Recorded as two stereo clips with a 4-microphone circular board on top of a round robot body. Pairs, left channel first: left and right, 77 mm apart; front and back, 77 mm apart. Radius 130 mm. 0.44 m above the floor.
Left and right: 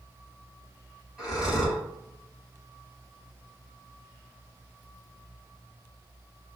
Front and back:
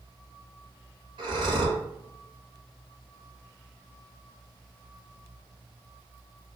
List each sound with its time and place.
1.2 s breathing: 175° left, 1.3 m